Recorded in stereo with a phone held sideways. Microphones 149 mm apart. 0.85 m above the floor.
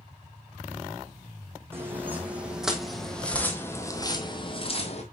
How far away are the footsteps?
About 1.9 m.